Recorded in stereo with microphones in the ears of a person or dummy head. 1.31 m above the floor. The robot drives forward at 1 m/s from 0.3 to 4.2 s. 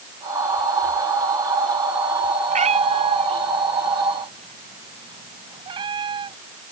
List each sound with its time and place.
2.5 s a cat meowing: 35° right (ahead or behind); by 6.4 s 25° right (ahead or behind)